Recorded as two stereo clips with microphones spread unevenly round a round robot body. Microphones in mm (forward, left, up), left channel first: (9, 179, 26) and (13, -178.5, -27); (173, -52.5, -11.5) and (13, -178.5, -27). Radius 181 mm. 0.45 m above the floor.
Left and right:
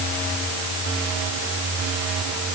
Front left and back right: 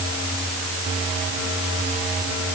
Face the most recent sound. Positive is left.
No sound to turn to.